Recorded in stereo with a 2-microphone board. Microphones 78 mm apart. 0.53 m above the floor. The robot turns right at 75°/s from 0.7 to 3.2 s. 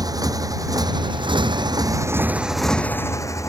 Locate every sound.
0.0 s a motorcycle: 50° right (ahead or behind); by 3.5 s 40° left (ahead or behind)